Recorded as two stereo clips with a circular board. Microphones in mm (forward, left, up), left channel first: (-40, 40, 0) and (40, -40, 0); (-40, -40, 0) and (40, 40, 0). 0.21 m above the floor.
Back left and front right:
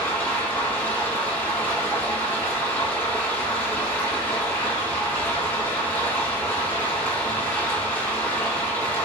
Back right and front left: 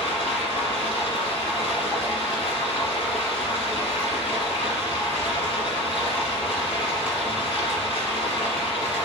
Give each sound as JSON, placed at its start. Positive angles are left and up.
{"t": 0.0, "sound": "running water", "azimuth_deg": -155, "distance_m": 1.4}